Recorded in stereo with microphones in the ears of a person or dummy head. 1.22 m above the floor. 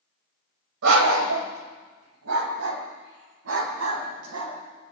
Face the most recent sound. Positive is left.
turn(degrees=-80)